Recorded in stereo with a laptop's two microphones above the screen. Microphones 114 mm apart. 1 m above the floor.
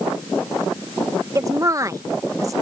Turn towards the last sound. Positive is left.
turn(degrees=-30)  # may be behind; listen again after turning